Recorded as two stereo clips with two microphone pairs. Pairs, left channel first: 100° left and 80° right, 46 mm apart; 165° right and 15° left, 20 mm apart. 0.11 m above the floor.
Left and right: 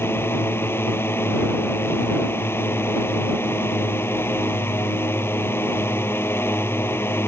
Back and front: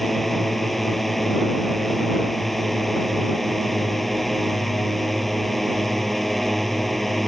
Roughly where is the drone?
Behind left.